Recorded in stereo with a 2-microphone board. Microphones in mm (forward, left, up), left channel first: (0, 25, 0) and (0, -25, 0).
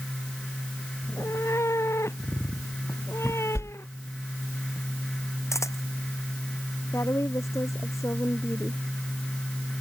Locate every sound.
1.0 s a cat meowing: 70° left (ahead or behind); by 4.2 s 60° left (ahead or behind)
3.5 s a whoosh: 65° left (ahead or behind)
5.5 s a camera shutter: 85° left
6.9 s a woman speaking: 75° left (ahead or behind)